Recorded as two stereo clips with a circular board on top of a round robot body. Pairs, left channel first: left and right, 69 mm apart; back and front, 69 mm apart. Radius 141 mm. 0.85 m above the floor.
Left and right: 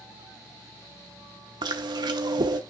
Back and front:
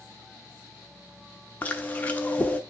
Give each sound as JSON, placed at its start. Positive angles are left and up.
{"t": 1.6, "sound": "chewing", "azimuth_deg": -110, "distance_m": 0.8}